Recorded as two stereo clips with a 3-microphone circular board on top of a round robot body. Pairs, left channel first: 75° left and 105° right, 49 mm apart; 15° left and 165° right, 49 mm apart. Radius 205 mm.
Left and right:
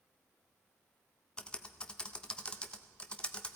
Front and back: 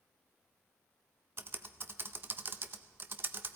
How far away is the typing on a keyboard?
About 0.5 m.